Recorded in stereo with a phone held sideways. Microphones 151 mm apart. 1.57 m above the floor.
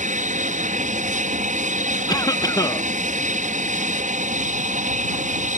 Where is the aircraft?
60° right (ahead or behind).